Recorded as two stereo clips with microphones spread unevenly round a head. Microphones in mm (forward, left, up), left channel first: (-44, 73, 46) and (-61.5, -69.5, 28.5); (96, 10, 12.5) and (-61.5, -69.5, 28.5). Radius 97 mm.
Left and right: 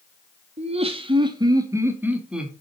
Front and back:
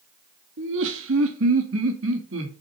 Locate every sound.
0.6 s laughter: 140° right, 2.5 m; by 2.5 s 175° left, 2.5 m